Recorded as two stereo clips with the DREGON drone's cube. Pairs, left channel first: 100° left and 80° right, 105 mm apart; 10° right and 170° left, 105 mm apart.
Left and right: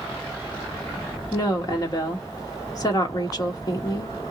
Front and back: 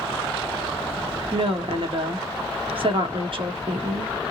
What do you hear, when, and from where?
1.3 s a woman speaking: 145° left, 1.3 m